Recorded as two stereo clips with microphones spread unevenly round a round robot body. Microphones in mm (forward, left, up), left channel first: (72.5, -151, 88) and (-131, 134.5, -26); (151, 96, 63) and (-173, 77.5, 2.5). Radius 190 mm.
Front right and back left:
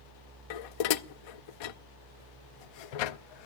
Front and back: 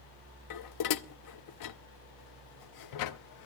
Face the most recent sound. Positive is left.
turn(degrees=-35)